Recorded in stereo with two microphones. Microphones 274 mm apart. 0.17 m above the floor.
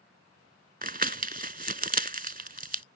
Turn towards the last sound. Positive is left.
turn(degrees=-35)  # may be behind; listen again after turning